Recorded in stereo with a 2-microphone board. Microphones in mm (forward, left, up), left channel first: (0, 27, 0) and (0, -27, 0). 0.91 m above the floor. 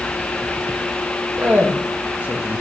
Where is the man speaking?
30° right (ahead or behind), 1.4 m.